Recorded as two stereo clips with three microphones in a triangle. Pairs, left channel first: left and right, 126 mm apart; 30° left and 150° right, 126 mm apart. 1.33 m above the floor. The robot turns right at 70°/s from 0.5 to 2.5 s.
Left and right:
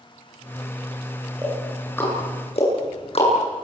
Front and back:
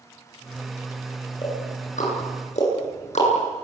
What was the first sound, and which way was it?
Ticking, 20° right.